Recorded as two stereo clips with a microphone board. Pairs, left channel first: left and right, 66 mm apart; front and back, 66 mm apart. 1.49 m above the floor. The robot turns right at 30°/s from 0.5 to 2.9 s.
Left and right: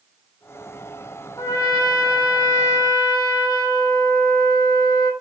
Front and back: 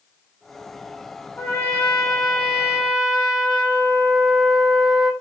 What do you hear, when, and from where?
1.4 s a trumpet: 50° left, 4.5 m; by 5.1 s 95° left, 4.5 m